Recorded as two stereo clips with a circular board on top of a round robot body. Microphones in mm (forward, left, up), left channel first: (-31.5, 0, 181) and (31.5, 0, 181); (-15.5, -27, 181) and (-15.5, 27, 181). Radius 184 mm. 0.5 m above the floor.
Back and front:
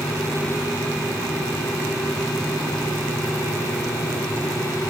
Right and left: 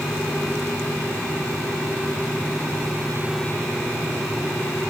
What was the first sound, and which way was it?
Only background noise.